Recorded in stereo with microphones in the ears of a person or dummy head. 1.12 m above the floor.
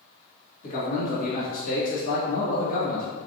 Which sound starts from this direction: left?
A man speaking, at 0.6 s.